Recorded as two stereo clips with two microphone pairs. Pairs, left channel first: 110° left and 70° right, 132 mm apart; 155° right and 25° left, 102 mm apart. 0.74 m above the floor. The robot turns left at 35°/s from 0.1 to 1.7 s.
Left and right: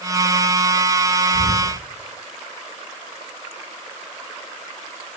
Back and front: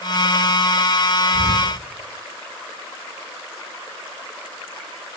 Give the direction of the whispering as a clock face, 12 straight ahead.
10 o'clock.